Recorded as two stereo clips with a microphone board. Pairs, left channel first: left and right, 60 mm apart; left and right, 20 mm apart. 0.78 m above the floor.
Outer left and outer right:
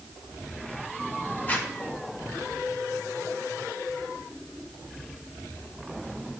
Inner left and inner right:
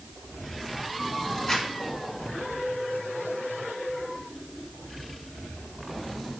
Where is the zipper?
25° left (ahead or behind), 1.5 m.